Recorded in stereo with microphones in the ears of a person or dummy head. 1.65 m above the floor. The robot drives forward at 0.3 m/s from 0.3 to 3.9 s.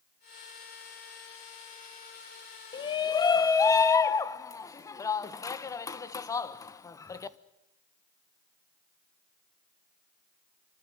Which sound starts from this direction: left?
A shout, at 2.7 s.